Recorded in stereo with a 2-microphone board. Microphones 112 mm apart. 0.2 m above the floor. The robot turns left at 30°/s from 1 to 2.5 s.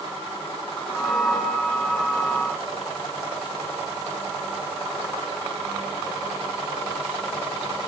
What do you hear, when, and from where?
Only background noise.